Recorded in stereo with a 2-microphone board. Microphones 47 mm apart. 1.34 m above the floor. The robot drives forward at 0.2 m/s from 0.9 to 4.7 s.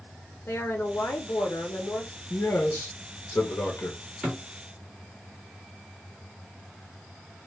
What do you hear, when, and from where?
0.5 s a woman speaking: 65° left (ahead or behind), 0.5 m; by 2.2 s 50° left (ahead or behind), 0.7 m
2.3 s a man speaking: 70° left (ahead or behind), 0.6 m; by 4.0 s 55° left (ahead or behind), 0.7 m
4.2 s a thud: 10° right (ahead or behind), 1.3 m; by 4.4 s 5° right (ahead or behind), 1.3 m